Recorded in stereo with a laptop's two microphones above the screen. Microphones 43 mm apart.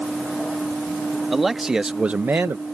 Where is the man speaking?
5° right (ahead or behind); by 2.6 s 55° right (ahead or behind).